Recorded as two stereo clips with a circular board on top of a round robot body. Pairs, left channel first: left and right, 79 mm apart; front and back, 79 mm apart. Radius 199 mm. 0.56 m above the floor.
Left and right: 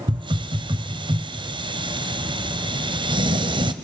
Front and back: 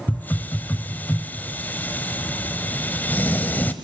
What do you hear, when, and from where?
0.1 s a hiss: 70° right, 0.6 m